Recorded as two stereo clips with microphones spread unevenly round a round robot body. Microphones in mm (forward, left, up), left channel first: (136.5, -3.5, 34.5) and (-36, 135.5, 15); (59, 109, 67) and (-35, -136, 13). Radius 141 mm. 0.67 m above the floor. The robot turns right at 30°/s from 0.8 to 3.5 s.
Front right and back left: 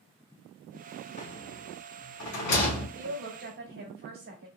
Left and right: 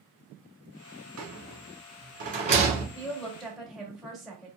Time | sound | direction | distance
1.2 | a rattle | 95° right | 1.8 m
3.0 | a woman speaking | 150° left | 1.6 m